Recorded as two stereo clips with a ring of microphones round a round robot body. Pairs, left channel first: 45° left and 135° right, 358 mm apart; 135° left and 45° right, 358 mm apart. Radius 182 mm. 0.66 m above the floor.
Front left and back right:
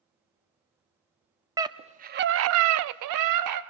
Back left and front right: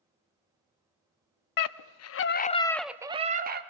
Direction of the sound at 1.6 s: 145° left.